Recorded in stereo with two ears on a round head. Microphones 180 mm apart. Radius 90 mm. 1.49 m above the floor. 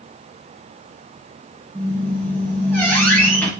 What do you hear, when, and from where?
1.8 s a squeak: 10° left (ahead or behind), 4.5 m